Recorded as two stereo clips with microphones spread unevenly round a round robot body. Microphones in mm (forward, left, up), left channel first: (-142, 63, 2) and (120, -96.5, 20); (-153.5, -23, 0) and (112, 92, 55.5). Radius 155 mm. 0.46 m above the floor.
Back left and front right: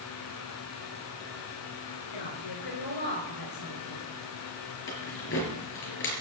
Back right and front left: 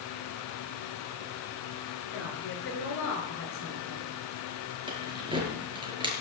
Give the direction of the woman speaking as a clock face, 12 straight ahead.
7 o'clock.